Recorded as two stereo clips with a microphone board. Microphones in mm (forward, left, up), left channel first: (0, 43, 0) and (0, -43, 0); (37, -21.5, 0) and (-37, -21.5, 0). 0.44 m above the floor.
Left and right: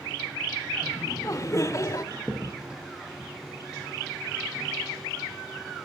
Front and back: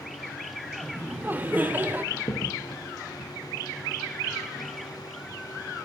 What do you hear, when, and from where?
0.8 s laughter: 125° left, 1.0 m
2.1 s a crack: 10° right, 2.5 m